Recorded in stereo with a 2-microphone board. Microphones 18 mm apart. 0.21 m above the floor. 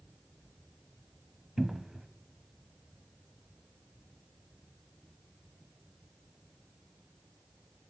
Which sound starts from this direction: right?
A cupboard door, at 1.6 s.